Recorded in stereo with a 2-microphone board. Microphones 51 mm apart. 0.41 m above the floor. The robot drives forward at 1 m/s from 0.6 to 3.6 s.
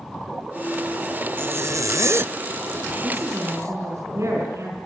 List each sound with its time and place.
1.4 s a zipper: 40° right (ahead or behind), 0.7 m
3.0 s a woman speaking: 75° right (ahead or behind), 5.5 m; by 4.8 s 70° right (ahead or behind), 6 m